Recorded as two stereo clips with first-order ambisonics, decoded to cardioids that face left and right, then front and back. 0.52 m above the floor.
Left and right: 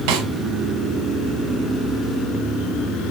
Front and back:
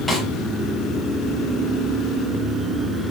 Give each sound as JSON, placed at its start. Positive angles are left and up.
{"t": 0.1, "sound": "a snare drum", "azimuth_deg": -90, "distance_m": 4.5}